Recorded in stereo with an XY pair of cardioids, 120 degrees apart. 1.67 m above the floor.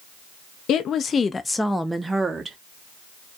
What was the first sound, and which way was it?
A woman speaking, 60° left.